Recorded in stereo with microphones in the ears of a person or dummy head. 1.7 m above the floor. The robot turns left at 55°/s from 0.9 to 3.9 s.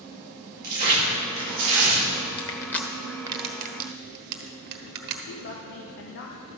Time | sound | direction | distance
0.6 | tearing paper | 55° right | 2.5 m
2.4 | crushing | 25° left (ahead or behind) | 1.2 m
5.3 | a woman speaking | 65° left (ahead or behind) | 1.1 m